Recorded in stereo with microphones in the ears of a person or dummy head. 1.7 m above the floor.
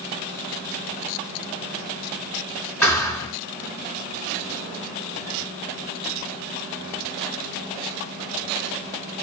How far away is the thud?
About 3 m.